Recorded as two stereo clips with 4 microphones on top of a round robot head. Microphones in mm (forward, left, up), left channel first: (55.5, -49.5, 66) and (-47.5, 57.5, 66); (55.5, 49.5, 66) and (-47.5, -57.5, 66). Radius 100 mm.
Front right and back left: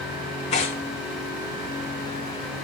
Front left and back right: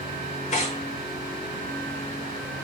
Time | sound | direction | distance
0.5 | tearing paper | 5° left | 4.5 m